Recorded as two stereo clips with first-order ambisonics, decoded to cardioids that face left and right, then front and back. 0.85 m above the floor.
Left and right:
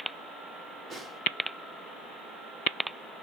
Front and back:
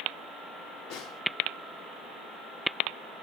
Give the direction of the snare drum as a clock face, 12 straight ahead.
12 o'clock.